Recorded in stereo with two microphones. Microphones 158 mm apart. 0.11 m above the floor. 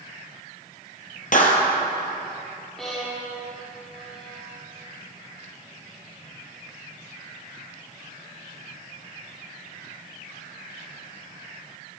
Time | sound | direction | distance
1.3 | a clap | 60° left (ahead or behind) | 2.5 m
2.8 | a violin | 5° left (ahead or behind) | 6.5 m